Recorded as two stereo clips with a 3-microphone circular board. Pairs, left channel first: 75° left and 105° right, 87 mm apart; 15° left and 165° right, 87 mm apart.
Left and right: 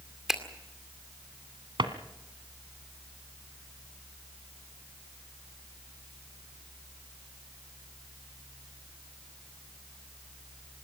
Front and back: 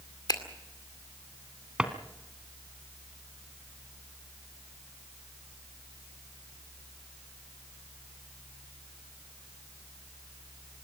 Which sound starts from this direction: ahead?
A finger snap, at 0.3 s.